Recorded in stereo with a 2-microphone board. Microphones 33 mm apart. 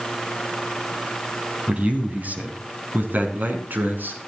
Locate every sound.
1.7 s a man speaking: 45° right (ahead or behind), 2.5 m; by 4.2 s 70° right (ahead or behind), 4 m